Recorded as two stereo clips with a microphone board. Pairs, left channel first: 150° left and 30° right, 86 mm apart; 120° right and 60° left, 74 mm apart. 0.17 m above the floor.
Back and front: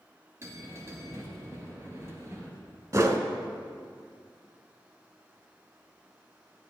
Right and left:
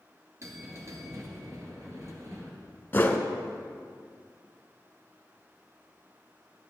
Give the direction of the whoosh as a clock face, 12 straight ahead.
2 o'clock.